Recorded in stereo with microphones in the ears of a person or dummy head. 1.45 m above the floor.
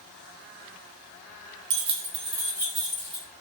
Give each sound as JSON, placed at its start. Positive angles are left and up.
{"t": 1.7, "sound": "keys jangling", "side_deg": -60, "distance_m": 0.7}